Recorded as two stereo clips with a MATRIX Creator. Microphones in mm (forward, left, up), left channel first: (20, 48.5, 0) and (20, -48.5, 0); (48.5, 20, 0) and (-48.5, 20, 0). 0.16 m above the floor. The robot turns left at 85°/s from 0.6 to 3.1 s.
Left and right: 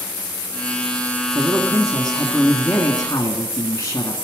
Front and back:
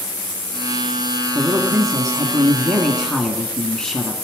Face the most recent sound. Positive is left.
turn(degrees=80)